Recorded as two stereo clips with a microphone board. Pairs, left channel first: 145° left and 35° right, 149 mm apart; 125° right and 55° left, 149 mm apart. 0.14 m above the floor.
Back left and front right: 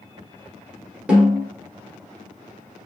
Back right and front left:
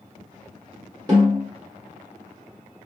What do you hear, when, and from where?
1.1 s a snare drum: 35° left, 1.5 m